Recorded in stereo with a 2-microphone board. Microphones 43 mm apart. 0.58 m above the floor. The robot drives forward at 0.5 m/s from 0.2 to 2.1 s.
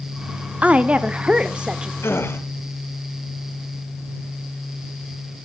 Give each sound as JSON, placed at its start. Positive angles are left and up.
{"t": 0.6, "sound": "a woman speaking", "side_deg": -30, "distance_m": 0.8}
{"t": 2.0, "sound": "a gasp", "side_deg": 70, "distance_m": 2.0}